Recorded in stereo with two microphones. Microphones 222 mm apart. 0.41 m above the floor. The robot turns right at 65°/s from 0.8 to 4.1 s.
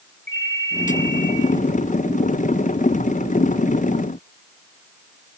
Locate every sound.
0.3 s a ringtone: 125° left, 5.5 m; by 1.4 s 165° left, 5.5 m